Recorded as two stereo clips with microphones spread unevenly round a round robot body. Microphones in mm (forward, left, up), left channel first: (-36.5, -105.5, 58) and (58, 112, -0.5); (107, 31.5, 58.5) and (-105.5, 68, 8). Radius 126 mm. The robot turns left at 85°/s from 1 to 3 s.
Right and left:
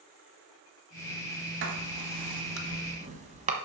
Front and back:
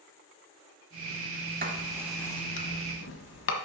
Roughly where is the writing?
Behind left.